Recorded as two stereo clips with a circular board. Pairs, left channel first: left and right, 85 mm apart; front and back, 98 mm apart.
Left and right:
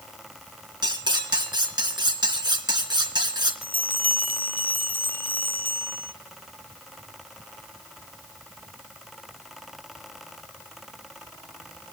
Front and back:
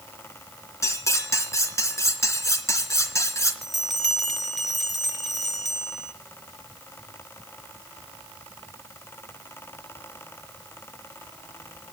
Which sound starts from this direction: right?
A bell, at 3.6 s.